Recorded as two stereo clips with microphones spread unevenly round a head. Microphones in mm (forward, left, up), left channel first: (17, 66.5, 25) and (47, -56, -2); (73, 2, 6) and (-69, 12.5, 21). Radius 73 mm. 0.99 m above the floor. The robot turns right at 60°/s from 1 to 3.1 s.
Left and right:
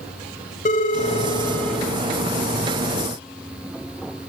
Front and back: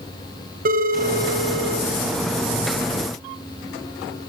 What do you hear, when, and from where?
0.7 s a phone ringing: 145° left, 3 m; by 1.9 s 165° right, 3 m